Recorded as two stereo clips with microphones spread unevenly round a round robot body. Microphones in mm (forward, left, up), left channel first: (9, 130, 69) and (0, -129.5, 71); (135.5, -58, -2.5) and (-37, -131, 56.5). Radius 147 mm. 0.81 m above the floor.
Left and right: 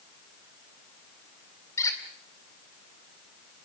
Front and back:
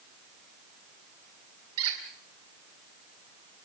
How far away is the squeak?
About 2.5 m.